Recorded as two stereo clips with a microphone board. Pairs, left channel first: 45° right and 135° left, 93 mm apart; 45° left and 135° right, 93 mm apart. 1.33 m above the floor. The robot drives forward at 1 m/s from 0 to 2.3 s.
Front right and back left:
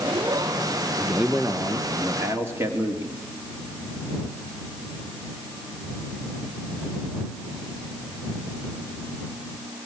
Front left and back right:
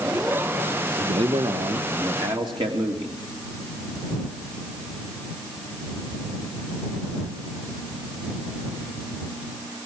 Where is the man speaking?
140° right, 1.1 m; by 3.2 s 160° right, 2 m.